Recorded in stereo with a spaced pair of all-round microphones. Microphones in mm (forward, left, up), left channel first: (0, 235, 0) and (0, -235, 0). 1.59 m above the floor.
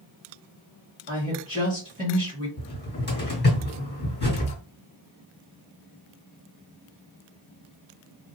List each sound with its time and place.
1.1 s a woman speaking: 15° right (ahead or behind), 1.7 m
2.6 s a cupboard door: 20° left (ahead or behind), 1.9 m